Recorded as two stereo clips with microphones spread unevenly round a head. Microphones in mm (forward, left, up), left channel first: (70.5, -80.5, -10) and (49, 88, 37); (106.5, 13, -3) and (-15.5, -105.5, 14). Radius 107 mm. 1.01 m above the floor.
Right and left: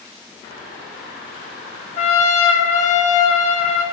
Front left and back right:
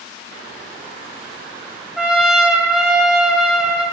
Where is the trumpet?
45° right, 1.4 m.